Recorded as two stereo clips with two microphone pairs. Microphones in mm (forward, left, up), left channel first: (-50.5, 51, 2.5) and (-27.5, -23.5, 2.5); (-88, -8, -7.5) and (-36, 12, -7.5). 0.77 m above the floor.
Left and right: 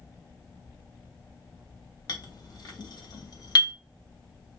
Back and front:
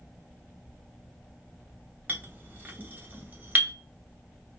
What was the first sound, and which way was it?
A clink, 80° left.